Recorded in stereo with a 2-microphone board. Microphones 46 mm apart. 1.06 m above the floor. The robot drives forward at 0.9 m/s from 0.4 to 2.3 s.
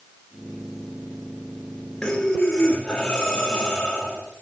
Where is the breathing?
15° left (ahead or behind), 2.5 m.